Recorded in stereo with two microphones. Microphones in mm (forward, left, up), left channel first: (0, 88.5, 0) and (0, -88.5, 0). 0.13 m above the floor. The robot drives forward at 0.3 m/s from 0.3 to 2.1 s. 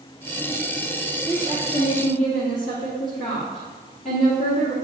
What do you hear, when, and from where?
1.3 s a woman speaking: 45° left (ahead or behind), 2.5 m